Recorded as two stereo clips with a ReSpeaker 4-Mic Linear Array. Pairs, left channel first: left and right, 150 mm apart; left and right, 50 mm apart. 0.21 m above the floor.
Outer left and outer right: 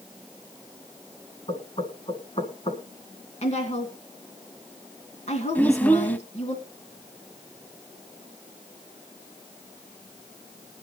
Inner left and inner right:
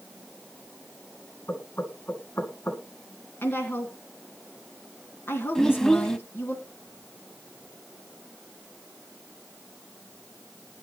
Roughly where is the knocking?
Left.